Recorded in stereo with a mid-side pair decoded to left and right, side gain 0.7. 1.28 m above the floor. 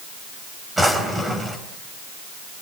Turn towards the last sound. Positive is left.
turn(degrees=-10)